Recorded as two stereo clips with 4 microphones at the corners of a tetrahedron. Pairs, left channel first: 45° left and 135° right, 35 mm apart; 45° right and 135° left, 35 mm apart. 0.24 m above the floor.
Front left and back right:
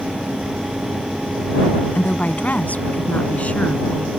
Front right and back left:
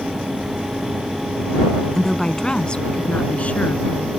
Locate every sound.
1.9 s a woman speaking: 30° left; by 4.1 s 5° right